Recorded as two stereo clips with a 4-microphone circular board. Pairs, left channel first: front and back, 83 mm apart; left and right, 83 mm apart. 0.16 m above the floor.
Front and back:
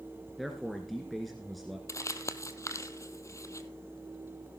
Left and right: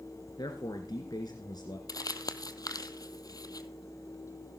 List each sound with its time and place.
0.4 s a man speaking: 90° left, 1.9 m
1.9 s crumpling: 50° left, 0.8 m